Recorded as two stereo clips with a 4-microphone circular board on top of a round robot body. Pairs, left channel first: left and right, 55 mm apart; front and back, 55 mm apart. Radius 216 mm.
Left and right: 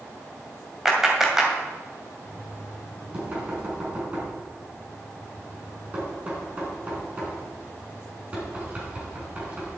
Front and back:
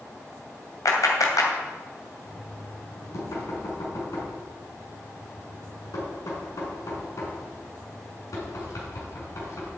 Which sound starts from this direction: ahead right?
Knocking, at 2.2 s.